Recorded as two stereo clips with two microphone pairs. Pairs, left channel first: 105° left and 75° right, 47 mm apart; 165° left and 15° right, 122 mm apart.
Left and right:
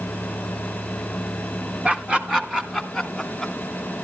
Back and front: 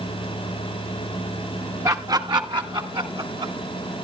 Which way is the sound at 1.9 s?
45° right.